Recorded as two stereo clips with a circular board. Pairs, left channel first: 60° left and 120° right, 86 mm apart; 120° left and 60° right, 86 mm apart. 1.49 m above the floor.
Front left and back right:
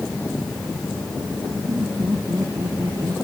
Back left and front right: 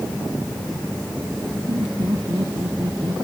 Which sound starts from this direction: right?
Laughter, at 1.7 s.